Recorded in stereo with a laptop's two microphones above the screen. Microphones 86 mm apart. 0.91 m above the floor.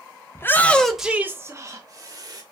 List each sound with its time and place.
0.3 s a shout: 30° left (ahead or behind), 0.6 m; by 2.4 s 55° right (ahead or behind), 1.0 m